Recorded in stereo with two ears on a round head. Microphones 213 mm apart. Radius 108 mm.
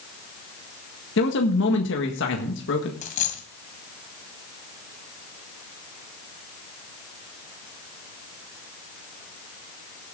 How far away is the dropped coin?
About 2.0 m.